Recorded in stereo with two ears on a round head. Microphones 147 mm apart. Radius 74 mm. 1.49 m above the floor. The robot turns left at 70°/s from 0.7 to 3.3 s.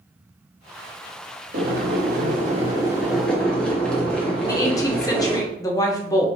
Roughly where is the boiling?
Ahead right.